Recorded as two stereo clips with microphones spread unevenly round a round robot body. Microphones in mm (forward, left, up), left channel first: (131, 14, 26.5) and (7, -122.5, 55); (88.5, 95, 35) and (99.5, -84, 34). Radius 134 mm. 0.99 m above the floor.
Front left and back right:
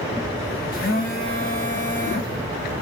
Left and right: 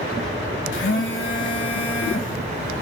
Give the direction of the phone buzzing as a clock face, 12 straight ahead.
9 o'clock.